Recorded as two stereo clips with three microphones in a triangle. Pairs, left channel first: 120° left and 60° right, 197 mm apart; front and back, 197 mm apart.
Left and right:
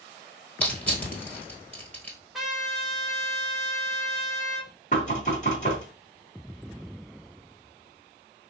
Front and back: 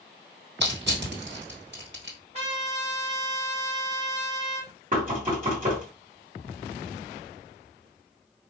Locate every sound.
0.6 s crushing: 160° right, 1.5 m
2.3 s a trumpet: 150° right, 1.3 m
4.9 s knocking: 150° left, 1.6 m